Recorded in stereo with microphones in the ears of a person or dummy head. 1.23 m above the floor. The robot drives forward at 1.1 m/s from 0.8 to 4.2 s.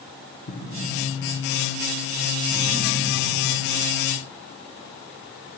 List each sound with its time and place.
0.5 s an explosion: 45° left (ahead or behind), 0.9 m; by 3.5 s 10° left (ahead or behind), 3.5 m